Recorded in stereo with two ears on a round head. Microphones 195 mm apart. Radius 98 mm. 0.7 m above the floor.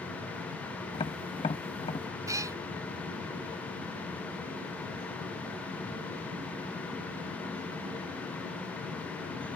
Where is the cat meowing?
15° right (ahead or behind).